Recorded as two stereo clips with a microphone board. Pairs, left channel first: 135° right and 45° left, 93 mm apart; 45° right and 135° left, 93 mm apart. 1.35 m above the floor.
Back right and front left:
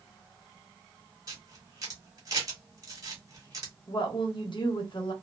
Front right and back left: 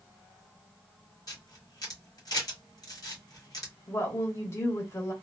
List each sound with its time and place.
1.3 s a camera shutter: straight ahead, 1.3 m
3.9 s a woman speaking: 105° right, 1.2 m